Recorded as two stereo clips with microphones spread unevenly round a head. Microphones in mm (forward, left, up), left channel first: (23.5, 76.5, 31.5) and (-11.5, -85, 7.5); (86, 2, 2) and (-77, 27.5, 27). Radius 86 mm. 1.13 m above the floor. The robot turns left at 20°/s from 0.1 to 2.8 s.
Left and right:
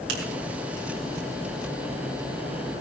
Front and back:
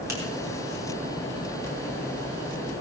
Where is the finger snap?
115° right, 3.5 m.